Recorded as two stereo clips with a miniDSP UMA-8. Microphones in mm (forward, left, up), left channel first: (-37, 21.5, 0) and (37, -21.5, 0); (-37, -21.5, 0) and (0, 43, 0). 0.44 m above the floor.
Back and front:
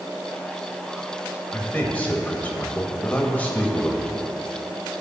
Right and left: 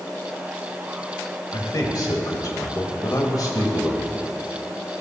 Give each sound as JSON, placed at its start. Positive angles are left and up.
{"t": 1.5, "sound": "a man speaking", "azimuth_deg": -140, "distance_m": 1.7}